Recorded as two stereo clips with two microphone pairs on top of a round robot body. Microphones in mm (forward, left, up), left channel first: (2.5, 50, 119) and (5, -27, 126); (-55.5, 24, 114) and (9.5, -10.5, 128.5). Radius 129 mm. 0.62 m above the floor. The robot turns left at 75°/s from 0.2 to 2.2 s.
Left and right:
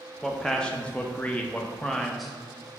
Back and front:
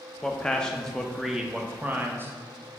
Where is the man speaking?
165° left, 0.5 m; by 2.7 s 20° left, 0.5 m.